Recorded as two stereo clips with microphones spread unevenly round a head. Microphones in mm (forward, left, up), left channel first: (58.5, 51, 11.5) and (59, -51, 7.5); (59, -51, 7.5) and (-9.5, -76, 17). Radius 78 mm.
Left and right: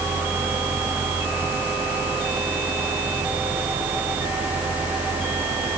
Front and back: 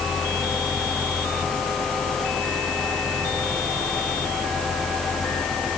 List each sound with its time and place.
Only background noise.